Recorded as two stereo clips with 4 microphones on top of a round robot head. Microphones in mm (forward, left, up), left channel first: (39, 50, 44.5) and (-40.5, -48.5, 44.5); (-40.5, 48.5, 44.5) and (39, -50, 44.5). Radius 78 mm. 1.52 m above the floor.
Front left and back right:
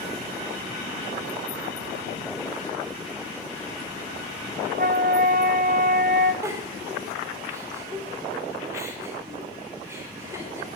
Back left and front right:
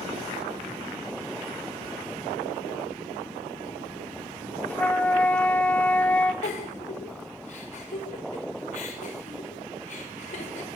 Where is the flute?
150° right, 1.4 m.